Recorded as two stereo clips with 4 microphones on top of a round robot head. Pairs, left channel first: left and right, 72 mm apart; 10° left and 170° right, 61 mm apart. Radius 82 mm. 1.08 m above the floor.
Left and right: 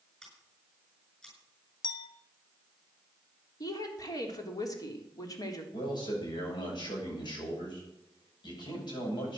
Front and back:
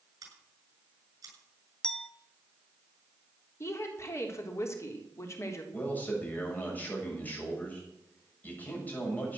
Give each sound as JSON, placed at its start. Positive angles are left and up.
{"t": 0.2, "sound": "scissors", "azimuth_deg": 170, "distance_m": 7.0}
{"t": 1.8, "sound": "a clink", "azimuth_deg": 90, "distance_m": 1.1}
{"t": 3.6, "sound": "a woman speaking", "azimuth_deg": 55, "distance_m": 3.5}
{"t": 5.7, "sound": "a man speaking", "azimuth_deg": 75, "distance_m": 7.5}